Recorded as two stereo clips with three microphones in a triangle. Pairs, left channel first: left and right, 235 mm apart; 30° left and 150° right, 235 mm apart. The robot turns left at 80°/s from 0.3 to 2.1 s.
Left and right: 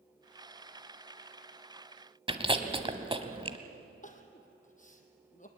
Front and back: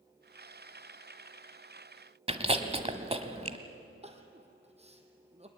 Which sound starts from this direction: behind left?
Crying, at 4.0 s.